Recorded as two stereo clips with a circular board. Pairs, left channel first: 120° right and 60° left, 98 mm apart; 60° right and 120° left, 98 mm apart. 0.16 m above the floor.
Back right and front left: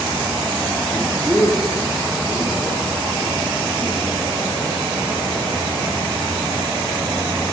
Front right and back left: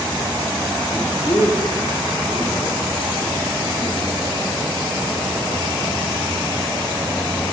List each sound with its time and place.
0.9 s a man speaking: 40° right, 1.9 m; by 4.2 s 10° right, 6 m